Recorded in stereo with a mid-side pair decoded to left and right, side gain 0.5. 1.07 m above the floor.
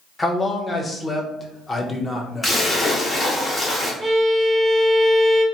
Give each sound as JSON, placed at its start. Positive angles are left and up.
{"t": 0.2, "sound": "a man speaking", "azimuth_deg": 25, "distance_m": 0.7}
{"t": 2.4, "sound": "a splash", "azimuth_deg": 25, "distance_m": 1.1}
{"t": 4.0, "sound": "a violin", "azimuth_deg": -10, "distance_m": 1.0}